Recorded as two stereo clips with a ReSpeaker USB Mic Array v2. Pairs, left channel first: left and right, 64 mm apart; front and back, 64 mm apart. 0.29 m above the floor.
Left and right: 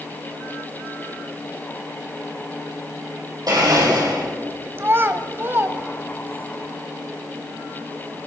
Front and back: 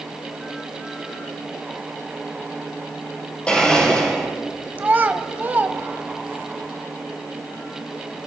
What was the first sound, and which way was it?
A blender, 70° right.